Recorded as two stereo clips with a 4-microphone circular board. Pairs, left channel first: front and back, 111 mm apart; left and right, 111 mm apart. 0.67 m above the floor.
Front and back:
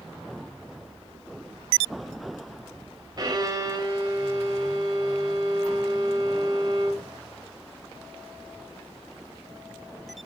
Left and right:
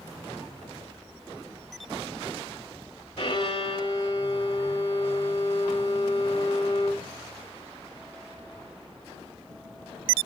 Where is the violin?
125° left, 1.9 m.